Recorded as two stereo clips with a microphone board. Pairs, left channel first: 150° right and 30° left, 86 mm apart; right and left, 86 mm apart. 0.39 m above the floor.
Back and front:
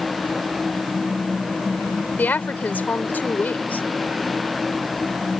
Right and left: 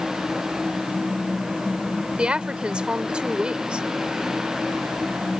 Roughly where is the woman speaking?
Behind.